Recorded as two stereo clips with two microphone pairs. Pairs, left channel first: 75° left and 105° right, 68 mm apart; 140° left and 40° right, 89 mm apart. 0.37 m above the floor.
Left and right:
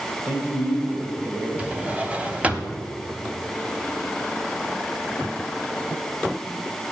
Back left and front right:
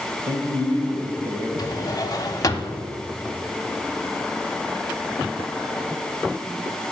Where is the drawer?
175° right, 0.9 m.